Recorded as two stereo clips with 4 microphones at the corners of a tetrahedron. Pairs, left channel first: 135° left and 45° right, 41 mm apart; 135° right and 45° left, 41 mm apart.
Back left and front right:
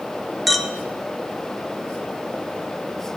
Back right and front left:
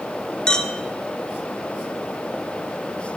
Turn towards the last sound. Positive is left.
turn(degrees=-130)